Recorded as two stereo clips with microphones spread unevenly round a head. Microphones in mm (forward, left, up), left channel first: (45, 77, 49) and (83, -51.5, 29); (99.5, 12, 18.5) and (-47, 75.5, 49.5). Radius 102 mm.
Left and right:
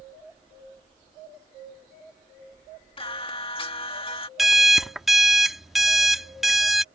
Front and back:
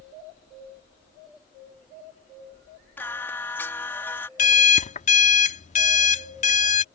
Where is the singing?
55° left.